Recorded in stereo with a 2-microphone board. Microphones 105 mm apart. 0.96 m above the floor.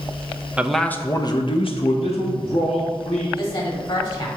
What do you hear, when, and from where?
0.6 s a man speaking: 10° right (ahead or behind), 0.7 m; by 3.3 s 80° left, 2 m
3.4 s a woman speaking: 55° left (ahead or behind), 2.0 m